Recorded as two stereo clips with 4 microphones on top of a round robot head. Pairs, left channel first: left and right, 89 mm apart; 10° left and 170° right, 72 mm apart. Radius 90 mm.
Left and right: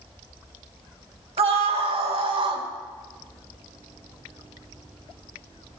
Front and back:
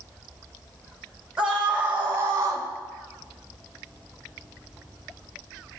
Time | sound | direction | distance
1.4 | a scream | 90° right | 1.9 m